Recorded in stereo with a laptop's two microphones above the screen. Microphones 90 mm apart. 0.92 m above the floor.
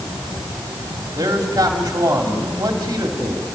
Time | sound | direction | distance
1.2 | a man speaking | 40° right (ahead or behind) | 2.5 m